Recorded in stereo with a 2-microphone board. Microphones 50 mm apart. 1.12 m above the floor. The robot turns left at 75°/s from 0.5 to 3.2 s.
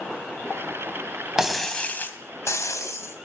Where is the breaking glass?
170° right, 2.5 m; by 3.3 s 50° left, 2.5 m.